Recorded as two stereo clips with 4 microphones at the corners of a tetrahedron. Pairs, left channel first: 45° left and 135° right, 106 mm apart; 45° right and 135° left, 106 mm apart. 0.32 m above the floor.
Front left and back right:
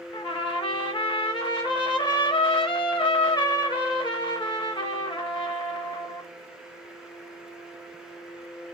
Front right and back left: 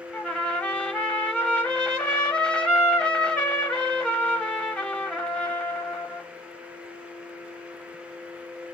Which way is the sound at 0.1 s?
30° left.